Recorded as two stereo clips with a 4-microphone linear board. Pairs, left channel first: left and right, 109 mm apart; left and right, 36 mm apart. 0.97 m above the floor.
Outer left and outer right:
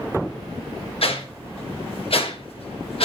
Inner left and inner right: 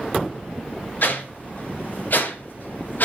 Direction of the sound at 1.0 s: 60° left (ahead or behind).